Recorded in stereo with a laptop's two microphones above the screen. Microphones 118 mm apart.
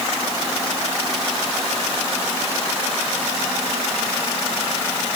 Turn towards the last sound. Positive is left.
No sound to turn to.